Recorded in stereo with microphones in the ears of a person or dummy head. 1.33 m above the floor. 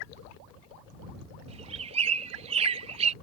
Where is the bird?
35° right (ahead or behind).